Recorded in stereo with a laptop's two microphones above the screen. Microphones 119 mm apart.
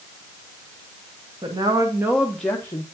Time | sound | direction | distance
1.4 | a woman speaking | 40° right (ahead or behind) | 0.9 m